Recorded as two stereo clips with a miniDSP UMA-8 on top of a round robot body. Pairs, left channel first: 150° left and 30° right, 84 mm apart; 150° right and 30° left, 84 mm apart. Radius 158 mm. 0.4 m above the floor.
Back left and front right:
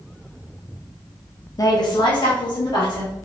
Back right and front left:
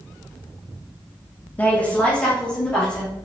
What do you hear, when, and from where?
1.6 s a woman speaking: 150° left, 1.0 m; by 3.1 s 130° left, 3 m